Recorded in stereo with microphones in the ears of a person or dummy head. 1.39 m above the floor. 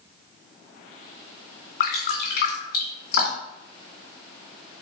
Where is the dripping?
60° left (ahead or behind), 3 m.